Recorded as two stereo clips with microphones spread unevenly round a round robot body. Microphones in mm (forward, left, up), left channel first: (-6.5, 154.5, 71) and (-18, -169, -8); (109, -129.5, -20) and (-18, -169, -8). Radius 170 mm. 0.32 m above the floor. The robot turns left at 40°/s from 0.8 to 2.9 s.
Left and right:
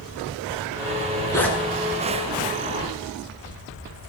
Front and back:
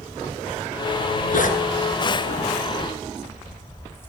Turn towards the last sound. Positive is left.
turn(degrees=-55)